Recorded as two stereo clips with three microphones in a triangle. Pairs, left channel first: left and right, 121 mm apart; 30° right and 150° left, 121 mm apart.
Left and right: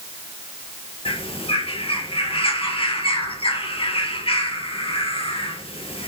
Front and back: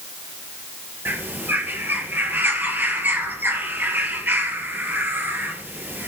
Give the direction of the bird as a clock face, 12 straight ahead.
9 o'clock.